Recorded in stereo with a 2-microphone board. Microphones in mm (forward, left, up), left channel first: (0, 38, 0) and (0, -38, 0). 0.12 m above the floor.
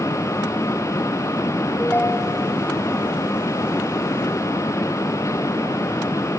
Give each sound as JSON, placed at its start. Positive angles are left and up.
{"t": 1.8, "sound": "a ringtone", "side_deg": 25, "distance_m": 1.8}